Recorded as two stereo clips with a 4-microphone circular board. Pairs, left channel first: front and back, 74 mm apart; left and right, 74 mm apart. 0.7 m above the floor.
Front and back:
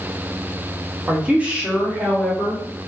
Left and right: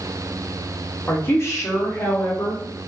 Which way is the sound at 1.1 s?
120° left.